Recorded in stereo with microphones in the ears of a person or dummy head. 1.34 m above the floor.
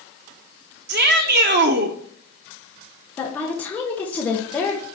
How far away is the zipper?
I don't hear a zipper.